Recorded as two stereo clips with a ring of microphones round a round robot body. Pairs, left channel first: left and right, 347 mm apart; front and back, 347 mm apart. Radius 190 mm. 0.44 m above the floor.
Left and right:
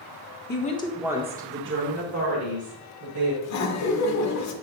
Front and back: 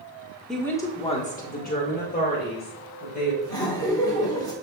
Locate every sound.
0.5 s a woman speaking: 85° left, 1.2 m; by 3.3 s 65° right, 3 m
3.4 s laughter: 75° left, 1.3 m